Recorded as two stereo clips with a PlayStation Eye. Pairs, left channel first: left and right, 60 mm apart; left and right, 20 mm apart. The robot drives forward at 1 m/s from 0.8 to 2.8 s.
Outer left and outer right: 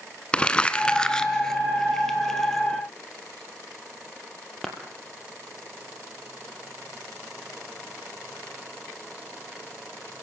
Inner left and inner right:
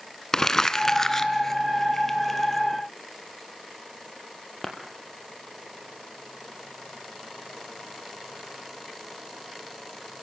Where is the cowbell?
No cowbell in this recording.